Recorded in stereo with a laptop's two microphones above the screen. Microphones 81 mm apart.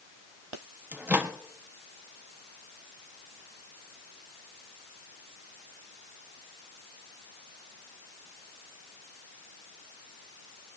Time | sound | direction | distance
0.9 | a microwave | 20° right (ahead or behind) | 1.2 m